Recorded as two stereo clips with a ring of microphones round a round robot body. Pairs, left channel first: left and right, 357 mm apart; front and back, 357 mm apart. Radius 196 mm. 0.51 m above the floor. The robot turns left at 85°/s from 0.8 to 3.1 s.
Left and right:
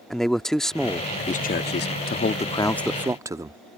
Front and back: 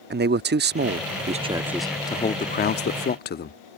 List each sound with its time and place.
0.1 s a man speaking: 175° left; by 3.6 s 20° right